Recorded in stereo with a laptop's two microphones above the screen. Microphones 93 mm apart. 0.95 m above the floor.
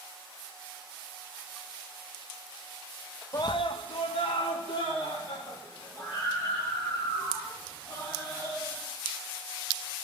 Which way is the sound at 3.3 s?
35° left (ahead or behind).